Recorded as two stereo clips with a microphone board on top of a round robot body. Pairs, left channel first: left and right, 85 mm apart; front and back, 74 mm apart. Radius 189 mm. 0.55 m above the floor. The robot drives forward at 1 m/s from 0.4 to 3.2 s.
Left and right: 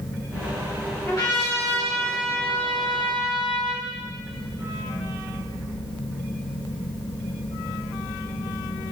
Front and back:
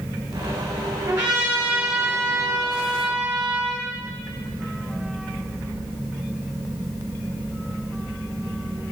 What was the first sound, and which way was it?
A trumpet, 140° left.